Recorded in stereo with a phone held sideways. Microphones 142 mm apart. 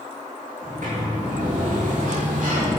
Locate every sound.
0.6 s a sliding door: 65° right (ahead or behind), 3 m